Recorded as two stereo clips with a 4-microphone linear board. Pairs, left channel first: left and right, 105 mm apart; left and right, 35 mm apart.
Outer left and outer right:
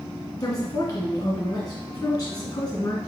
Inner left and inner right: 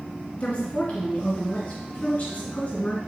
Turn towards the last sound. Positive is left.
turn(degrees=35)  # may be behind; listen again after turning